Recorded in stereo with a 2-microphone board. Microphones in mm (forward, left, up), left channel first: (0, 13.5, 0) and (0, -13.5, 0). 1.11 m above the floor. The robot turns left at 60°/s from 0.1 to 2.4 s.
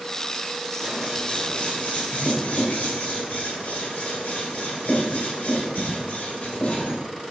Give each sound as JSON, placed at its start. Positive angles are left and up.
{"t": 0.8, "sound": "scissors", "side_deg": -5, "distance_m": 3.0}